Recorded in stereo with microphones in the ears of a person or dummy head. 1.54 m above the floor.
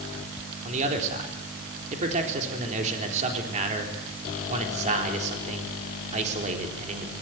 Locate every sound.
0.7 s a man speaking: 40° right (ahead or behind), 4 m